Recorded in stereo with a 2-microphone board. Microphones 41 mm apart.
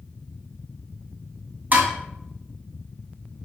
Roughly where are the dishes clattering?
Right.